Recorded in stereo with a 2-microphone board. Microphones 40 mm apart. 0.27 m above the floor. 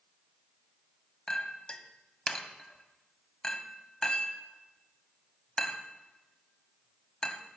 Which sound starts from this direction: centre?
A clink, at 1.3 s.